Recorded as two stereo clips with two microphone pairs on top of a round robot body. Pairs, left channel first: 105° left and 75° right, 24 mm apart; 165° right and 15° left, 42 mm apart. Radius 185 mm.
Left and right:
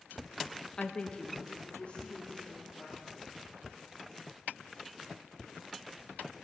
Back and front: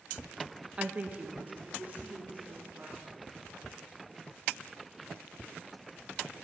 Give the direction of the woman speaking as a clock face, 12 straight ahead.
10 o'clock.